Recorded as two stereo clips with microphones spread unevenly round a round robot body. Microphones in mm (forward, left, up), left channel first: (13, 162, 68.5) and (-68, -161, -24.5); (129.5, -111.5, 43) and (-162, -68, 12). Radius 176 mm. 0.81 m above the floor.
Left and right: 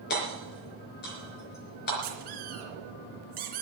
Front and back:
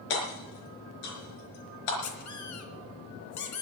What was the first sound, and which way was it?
Hammering, 15° left.